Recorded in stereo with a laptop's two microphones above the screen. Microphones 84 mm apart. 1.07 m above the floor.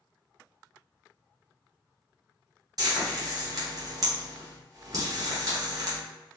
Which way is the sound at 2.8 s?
45° right (ahead or behind).